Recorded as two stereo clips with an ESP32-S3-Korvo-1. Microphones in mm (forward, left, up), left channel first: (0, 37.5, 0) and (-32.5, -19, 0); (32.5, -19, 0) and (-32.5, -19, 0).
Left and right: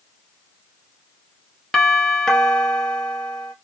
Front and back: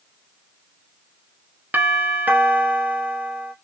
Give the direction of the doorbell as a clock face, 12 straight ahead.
7 o'clock.